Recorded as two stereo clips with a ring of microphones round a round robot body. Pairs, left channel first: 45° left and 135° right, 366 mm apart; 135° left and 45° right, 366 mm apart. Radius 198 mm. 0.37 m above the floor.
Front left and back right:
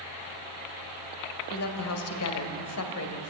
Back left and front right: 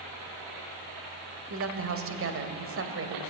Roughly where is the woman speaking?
Ahead.